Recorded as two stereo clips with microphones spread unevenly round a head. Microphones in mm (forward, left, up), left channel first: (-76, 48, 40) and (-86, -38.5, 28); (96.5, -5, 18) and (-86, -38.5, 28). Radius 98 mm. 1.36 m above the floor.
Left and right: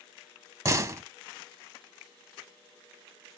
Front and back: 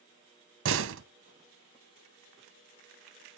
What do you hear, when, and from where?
0.7 s a door slam: 155° right, 0.8 m